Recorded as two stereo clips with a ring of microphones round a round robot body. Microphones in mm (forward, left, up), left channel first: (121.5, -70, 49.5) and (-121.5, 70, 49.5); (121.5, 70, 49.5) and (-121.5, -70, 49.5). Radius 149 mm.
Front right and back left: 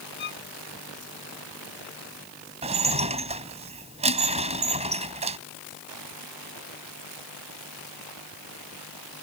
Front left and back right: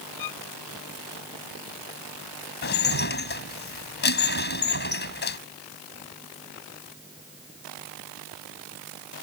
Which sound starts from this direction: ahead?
A violin, at 0.2 s.